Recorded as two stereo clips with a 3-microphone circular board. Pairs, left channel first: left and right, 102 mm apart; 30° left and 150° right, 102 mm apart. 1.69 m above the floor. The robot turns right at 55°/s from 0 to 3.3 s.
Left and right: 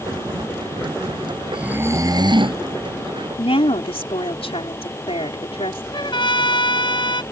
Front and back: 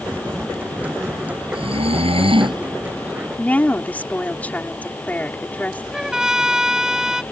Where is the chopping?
No chopping in this recording.